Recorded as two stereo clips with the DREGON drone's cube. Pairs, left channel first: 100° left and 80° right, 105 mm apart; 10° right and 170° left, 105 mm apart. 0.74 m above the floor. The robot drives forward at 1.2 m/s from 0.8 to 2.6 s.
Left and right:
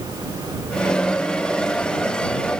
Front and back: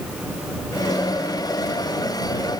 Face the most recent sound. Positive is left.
No sound to turn to.